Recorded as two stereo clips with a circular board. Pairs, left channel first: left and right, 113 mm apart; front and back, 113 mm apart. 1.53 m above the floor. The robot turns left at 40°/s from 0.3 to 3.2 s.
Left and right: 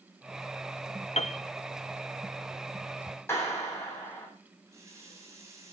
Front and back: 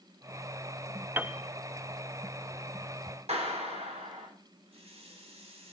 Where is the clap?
160° left, 7.5 m.